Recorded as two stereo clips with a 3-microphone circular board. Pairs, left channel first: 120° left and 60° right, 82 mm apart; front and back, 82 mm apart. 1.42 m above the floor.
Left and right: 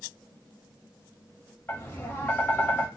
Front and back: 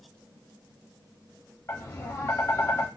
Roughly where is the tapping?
Ahead left.